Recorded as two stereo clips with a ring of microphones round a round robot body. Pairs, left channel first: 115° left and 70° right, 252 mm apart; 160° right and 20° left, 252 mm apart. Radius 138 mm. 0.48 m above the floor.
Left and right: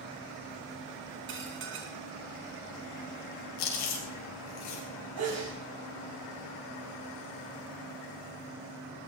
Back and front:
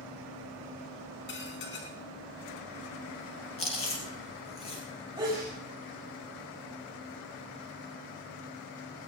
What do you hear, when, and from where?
1.3 s dishes clattering: 110° right, 4 m
3.6 s chewing: 135° left, 5 m
5.2 s a sneeze: 50° right, 4 m